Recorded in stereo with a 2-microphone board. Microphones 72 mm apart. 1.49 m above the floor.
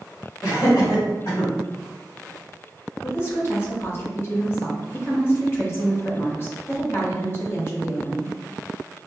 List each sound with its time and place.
0.4 s laughter: 50° left (ahead or behind), 2.0 m; by 1.5 s 65° left (ahead or behind), 1.7 m
3.0 s a woman speaking: 35° left (ahead or behind), 1.2 m